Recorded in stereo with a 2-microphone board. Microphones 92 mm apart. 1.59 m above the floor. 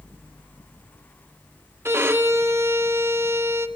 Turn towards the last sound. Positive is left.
turn(degrees=-25)  # may be behind; listen again after turning